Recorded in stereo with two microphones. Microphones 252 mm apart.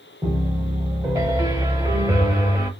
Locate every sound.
0.2 s a piano: 15° right (ahead or behind), 0.7 m